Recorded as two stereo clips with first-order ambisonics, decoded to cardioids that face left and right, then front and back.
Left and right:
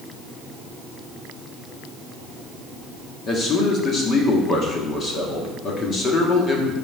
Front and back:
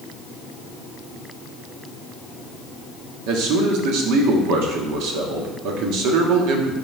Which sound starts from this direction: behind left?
A man speaking, at 3.3 s.